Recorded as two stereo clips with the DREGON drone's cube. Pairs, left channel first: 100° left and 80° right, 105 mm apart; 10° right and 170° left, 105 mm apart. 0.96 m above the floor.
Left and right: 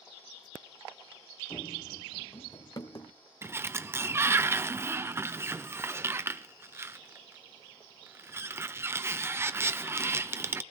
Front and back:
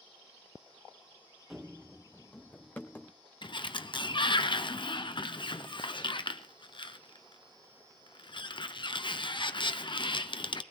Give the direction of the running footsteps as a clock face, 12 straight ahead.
9 o'clock.